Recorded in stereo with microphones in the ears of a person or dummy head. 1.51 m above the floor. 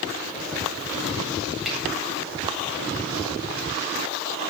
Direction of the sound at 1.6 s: 5° right (ahead or behind).